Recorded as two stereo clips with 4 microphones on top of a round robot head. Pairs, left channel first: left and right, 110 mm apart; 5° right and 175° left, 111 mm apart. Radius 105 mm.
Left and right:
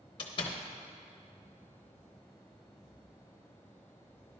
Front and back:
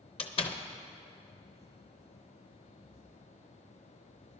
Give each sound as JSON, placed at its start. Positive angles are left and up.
{"t": 0.2, "sound": "a door slam", "azimuth_deg": 35, "distance_m": 0.8}